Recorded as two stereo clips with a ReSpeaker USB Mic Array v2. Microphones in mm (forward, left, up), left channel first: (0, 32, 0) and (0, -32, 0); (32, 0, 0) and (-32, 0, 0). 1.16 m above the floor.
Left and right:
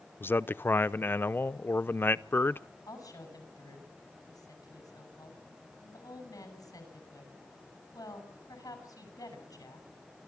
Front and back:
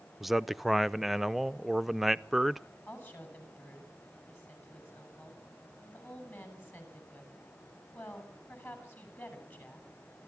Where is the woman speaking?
55° left, 7 m.